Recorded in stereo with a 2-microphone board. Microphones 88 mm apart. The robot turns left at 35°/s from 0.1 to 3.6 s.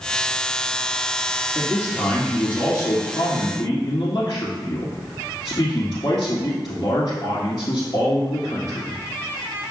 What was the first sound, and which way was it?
A man speaking, 165° right.